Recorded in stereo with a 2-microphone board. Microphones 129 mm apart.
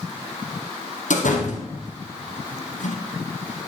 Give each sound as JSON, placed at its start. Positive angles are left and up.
{"t": 1.1, "sound": "a door slam", "side_deg": 75, "distance_m": 4.0}